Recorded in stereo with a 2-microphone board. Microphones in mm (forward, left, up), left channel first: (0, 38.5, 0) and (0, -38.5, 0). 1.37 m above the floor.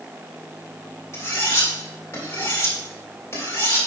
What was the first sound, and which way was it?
Cutlery clinking, 35° left (ahead or behind).